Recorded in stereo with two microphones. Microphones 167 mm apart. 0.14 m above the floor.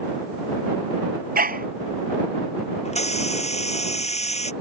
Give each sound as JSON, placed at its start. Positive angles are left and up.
{"t": 1.4, "sound": "a dog barking", "side_deg": -60}
{"t": 2.9, "sound": "a hiss", "side_deg": 40}